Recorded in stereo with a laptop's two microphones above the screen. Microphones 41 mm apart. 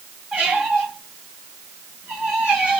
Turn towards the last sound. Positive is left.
turn(degrees=-35)  # may be behind; listen again after turning